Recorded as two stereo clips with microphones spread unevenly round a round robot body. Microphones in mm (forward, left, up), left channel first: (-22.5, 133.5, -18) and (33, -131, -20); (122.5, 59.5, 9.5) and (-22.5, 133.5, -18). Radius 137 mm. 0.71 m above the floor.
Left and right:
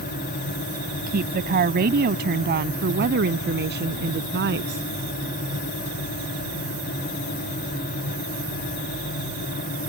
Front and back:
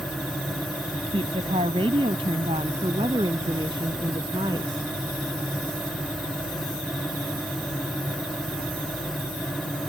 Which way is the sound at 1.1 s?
135° right.